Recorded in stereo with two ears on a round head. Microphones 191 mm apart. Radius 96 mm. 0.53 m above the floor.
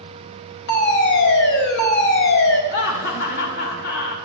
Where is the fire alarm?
60° left (ahead or behind), 3.5 m.